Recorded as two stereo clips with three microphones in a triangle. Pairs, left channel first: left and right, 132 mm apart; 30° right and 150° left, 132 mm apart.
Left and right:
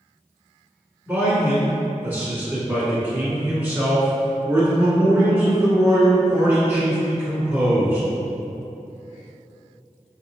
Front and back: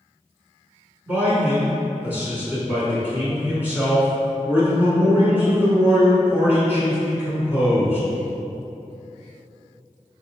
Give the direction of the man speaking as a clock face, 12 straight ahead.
5 o'clock.